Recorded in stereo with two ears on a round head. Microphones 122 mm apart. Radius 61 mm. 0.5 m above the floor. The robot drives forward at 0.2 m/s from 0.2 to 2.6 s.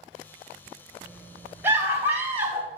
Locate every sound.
1.6 s a scream: 20° right (ahead or behind), 3 m; by 2.7 s 15° right (ahead or behind), 3 m